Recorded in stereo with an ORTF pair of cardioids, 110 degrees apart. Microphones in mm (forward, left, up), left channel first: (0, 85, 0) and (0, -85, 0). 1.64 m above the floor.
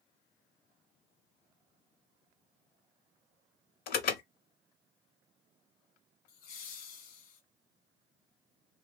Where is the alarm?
70° left, 0.9 m.